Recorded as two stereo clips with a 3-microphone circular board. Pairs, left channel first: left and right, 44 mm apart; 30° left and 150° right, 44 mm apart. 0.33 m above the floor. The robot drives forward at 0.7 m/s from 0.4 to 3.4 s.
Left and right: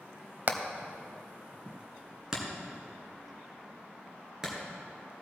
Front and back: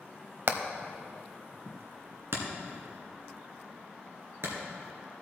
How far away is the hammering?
About 0.7 m.